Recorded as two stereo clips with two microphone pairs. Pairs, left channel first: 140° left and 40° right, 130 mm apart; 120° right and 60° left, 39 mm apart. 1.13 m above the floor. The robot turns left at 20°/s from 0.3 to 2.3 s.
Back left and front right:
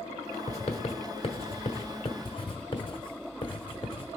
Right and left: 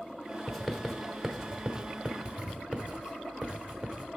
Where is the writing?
140° left, 1.1 m; by 4.1 s 105° left, 1.1 m.